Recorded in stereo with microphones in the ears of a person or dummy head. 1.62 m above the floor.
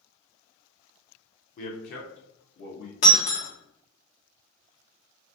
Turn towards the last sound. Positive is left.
turn(degrees=45)  # may be behind; listen again after turning